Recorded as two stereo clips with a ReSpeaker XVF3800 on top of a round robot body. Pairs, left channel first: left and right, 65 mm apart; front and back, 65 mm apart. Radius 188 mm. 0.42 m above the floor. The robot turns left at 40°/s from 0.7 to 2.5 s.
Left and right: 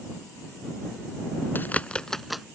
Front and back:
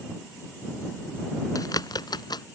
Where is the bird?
30° left; by 2.5 s 5° right.